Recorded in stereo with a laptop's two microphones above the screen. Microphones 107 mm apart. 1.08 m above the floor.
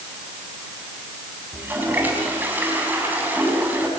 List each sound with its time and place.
1.5 s a toilet flushing: 15° right (ahead or behind), 4.5 m